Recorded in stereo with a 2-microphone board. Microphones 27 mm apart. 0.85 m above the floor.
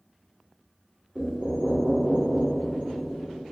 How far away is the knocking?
About 1.7 m.